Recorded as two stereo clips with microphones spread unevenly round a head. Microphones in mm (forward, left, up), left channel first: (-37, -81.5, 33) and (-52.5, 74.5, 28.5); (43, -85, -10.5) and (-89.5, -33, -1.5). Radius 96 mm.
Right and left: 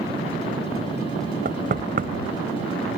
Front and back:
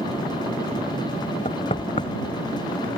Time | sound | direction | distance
1.4 | knocking | 45° left | ?